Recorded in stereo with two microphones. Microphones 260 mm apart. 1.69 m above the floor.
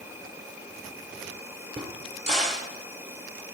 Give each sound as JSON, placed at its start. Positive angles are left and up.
{"t": 0.0, "sound": "an insect", "side_deg": -10, "distance_m": 1.8}
{"t": 1.8, "sound": "a crack", "side_deg": -25, "distance_m": 1.9}